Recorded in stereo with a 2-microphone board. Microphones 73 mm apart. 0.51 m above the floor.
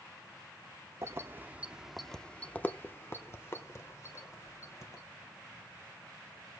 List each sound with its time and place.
1.0 s keys jangling: 40° right (ahead or behind), 0.7 m; by 5.0 s 45° left (ahead or behind), 1.9 m